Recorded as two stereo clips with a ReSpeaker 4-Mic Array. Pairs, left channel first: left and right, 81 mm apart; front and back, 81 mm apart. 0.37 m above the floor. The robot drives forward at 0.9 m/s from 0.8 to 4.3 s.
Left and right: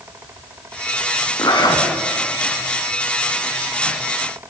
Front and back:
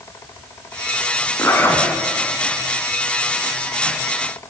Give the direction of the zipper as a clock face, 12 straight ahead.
10 o'clock.